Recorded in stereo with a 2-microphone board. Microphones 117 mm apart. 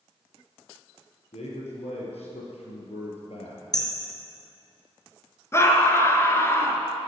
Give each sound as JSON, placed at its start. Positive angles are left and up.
{"t": 1.3, "sound": "a man speaking", "side_deg": 70, "distance_m": 5.0}
{"t": 3.7, "sound": "hammering", "side_deg": 35, "distance_m": 3.0}
{"t": 5.5, "sound": "a scream", "side_deg": 25, "distance_m": 1.8}